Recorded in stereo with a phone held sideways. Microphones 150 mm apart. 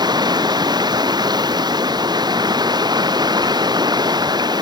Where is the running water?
25° right (ahead or behind).